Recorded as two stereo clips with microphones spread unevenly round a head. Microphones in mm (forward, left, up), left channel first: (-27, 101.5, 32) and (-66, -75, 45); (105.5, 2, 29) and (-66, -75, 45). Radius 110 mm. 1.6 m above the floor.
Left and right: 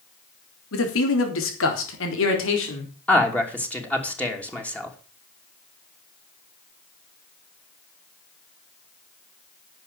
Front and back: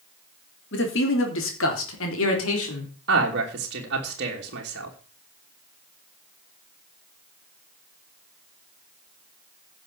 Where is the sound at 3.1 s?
160° left, 3 m.